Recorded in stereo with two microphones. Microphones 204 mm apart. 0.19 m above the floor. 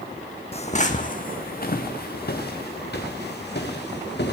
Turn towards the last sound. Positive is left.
turn(degrees=55)  # may be behind; listen again after turning